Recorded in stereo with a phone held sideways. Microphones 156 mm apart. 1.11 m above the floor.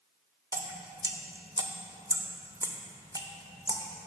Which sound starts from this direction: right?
Dripping, at 0.5 s.